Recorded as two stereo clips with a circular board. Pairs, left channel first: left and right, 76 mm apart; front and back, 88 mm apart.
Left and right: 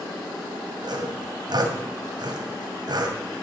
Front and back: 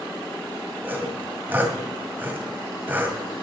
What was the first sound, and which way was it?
Sawing, 110° right.